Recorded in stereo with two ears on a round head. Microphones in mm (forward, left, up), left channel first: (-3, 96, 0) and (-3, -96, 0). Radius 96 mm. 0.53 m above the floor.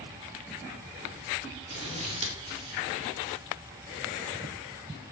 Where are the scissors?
30° right (ahead or behind), 1.5 m.